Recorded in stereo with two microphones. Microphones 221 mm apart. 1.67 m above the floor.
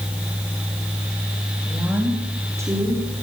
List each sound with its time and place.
1.7 s a woman speaking: 5° right (ahead or behind), 3.5 m; by 3.0 s 15° right (ahead or behind), 5.5 m